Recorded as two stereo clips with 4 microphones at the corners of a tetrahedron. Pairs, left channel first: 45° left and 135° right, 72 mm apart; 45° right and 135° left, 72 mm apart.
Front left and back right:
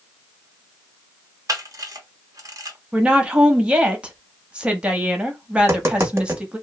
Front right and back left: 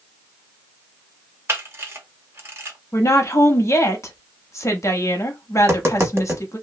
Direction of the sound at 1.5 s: 170° right.